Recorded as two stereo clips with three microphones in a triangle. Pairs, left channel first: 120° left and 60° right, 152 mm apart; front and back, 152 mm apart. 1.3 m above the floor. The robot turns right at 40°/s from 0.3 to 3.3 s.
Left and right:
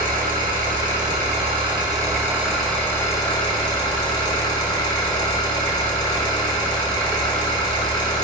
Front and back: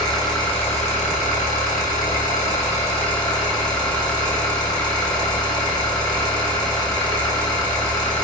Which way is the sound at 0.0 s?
60° right.